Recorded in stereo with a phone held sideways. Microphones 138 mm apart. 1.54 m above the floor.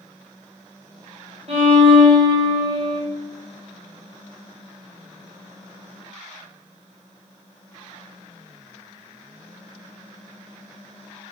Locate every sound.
1.5 s a violin: 45° right (ahead or behind), 1.1 m